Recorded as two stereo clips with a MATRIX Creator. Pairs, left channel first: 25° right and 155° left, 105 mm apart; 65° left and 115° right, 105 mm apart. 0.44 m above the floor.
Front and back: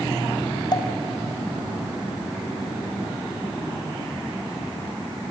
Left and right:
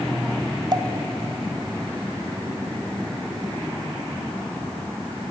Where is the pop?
65° right, 1.7 m.